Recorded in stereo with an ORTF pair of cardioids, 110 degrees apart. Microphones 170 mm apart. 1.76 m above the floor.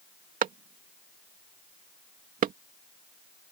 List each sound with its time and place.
0.4 s a clap: 55° right